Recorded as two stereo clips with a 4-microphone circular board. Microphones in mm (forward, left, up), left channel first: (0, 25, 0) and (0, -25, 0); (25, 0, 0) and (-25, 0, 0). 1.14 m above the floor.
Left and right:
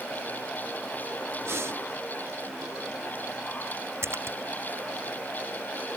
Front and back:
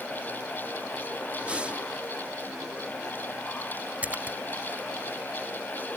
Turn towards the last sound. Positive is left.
turn(degrees=-120)